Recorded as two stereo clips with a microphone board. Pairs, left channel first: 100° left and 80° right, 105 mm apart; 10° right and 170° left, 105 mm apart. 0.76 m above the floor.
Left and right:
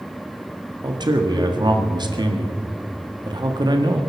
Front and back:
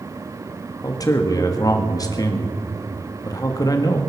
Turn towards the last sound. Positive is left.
turn(degrees=-55)